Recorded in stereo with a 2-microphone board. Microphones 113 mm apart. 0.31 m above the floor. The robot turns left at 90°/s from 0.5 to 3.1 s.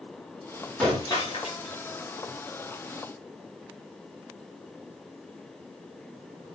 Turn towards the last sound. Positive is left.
turn(degrees=-35)